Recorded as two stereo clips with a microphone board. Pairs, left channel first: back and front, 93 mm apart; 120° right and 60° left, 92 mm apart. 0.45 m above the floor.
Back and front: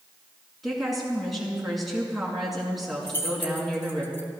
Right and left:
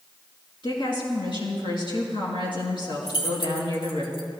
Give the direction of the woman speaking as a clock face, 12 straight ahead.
3 o'clock.